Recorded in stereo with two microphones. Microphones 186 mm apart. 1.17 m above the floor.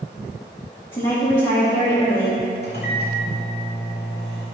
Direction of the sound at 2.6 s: 65° left (ahead or behind).